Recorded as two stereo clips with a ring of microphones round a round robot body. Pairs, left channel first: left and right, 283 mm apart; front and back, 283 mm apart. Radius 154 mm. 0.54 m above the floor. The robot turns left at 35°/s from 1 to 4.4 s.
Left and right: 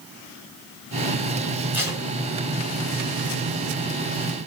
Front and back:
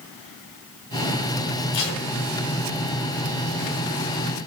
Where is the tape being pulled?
5° right, 4 m; by 2.0 s 15° right, 4 m.